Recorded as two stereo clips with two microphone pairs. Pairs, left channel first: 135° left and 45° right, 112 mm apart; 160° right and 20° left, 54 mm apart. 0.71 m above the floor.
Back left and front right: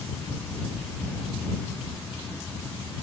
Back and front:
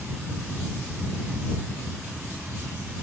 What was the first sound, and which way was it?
Only background noise.